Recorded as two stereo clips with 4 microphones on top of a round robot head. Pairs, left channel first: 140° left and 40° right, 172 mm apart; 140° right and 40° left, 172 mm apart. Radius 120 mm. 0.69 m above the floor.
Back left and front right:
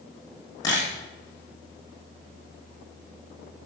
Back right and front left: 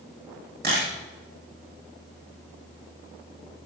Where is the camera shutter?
70° left, 7.5 m.